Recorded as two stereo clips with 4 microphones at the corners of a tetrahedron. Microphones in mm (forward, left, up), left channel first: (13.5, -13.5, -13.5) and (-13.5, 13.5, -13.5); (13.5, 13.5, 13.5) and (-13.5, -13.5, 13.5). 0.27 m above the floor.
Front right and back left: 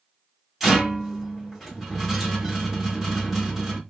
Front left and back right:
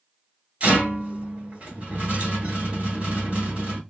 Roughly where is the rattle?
Behind right.